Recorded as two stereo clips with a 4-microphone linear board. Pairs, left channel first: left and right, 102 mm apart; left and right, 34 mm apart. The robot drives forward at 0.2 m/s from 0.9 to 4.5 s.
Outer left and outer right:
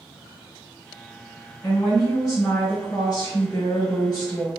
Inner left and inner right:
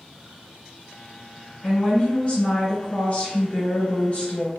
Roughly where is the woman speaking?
Left.